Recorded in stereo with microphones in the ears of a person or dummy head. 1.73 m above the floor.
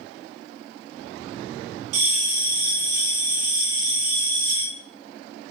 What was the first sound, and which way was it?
A bell, 85° right.